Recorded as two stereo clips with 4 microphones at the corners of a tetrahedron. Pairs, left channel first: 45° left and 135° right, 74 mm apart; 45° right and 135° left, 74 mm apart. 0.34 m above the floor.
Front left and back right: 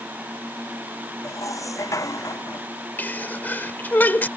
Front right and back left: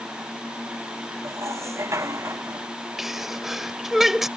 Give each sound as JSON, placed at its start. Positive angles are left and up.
{"t": 1.2, "sound": "dishes clattering", "azimuth_deg": 85}
{"t": 3.0, "sound": "a sneeze", "azimuth_deg": 55}